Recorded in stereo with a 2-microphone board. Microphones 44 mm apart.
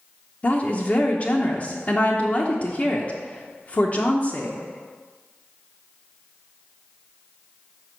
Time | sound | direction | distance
0.4 | a woman speaking | 30° left (ahead or behind) | 0.8 m